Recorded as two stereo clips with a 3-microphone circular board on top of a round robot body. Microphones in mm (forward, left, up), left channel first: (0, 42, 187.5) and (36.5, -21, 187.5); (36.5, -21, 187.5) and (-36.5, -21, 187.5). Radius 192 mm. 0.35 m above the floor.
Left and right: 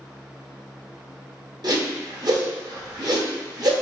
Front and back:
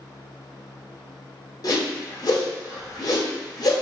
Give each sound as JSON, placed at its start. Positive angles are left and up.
{"t": 1.6, "sound": "a whoosh", "azimuth_deg": -35, "distance_m": 1.1}